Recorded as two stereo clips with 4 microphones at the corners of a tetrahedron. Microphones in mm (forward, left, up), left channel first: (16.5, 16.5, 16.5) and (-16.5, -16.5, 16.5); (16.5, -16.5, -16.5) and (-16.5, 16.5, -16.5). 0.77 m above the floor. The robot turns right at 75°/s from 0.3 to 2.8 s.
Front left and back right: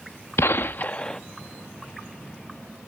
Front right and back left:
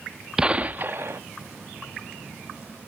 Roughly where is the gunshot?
Ahead left.